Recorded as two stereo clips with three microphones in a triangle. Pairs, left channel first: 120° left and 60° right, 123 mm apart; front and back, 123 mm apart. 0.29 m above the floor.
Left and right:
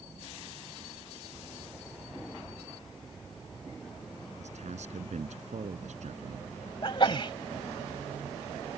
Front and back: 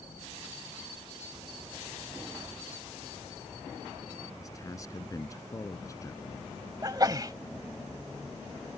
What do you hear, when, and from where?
4.4 s a man speaking: 60° right
6.8 s a sneeze: 140° left